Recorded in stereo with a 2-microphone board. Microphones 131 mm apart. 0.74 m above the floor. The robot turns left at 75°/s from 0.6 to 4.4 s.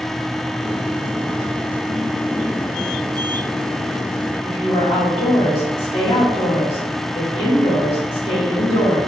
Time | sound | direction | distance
4.4 | a woman speaking | 45° left (ahead or behind) | 1.7 m